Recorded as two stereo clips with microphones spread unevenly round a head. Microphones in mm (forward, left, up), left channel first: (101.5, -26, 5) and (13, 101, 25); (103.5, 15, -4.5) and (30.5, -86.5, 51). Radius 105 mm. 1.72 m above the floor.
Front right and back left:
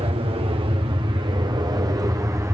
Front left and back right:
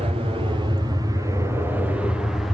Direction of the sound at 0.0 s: 170° left.